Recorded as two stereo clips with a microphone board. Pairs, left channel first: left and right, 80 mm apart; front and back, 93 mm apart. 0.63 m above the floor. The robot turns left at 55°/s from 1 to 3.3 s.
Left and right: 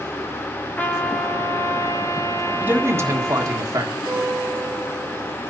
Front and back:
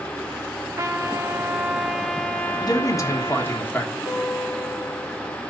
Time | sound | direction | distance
0.8 | a trumpet | 145° left | 1.1 m
2.6 | a man speaking | 20° right | 1.6 m
4.0 | a guitar | 85° right | 6.5 m